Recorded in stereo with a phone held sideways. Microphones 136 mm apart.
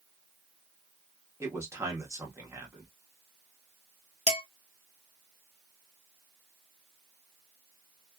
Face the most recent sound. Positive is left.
turn(degrees=50)  # may be behind; listen again after turning